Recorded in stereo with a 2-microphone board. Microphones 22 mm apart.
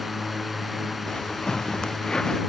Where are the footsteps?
45° left (ahead or behind); by 2.4 s 35° left (ahead or behind).